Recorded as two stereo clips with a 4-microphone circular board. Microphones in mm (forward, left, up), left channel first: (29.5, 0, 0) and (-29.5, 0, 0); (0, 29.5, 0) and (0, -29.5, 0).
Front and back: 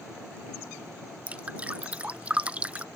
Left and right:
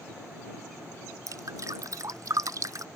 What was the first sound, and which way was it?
Dripping, 110° right.